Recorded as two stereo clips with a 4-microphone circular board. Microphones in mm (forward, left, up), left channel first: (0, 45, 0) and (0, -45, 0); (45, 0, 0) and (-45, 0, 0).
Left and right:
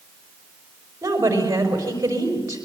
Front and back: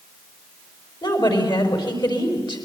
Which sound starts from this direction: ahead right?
A woman speaking, at 1.0 s.